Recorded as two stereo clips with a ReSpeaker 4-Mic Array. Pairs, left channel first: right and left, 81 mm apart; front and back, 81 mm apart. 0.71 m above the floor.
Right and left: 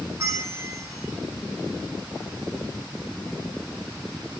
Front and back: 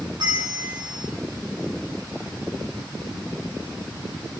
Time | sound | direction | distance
0.2 | a bell | 150° left | 4 m